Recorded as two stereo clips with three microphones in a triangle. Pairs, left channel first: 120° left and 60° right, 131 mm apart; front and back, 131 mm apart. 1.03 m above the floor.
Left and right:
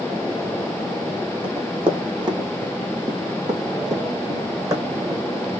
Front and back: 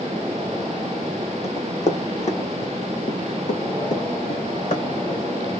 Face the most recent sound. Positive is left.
turn(degrees=5)